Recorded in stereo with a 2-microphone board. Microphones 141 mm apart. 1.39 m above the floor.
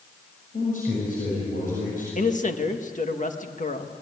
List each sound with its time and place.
0.5 s a man speaking: 70° left (ahead or behind), 7 m
2.1 s a man speaking: 60° left (ahead or behind), 1.8 m